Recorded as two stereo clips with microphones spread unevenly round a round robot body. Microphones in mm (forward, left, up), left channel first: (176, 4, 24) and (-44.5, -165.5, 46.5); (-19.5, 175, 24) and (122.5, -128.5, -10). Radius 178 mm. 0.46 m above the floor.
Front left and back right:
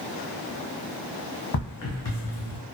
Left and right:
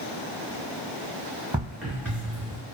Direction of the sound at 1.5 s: 20° left.